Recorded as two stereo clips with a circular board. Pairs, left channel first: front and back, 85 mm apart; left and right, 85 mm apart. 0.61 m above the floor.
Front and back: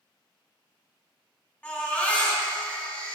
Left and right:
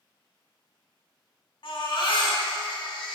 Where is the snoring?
I don't hear snoring.